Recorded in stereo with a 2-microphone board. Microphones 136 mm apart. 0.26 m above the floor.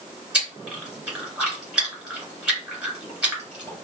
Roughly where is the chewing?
Centre.